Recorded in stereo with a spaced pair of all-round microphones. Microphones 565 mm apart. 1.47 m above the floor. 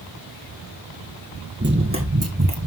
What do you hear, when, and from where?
1.6 s running footsteps: 20° right (ahead or behind), 2.0 m; by 2.7 s 30° right (ahead or behind), 1.9 m